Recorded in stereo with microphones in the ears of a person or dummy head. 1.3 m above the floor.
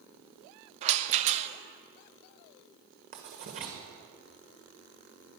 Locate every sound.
0.8 s a rattle: 35° right (ahead or behind), 0.7 m
3.1 s writing: 40° right (ahead or behind), 1.3 m